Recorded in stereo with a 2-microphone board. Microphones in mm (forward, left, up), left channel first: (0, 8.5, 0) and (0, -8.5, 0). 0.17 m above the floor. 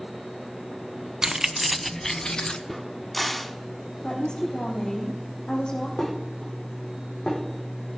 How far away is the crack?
About 1.5 m.